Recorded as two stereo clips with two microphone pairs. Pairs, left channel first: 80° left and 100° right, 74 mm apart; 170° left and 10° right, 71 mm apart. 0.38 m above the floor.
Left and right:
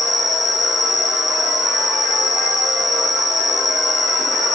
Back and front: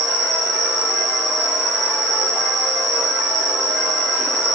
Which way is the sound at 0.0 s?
10° right.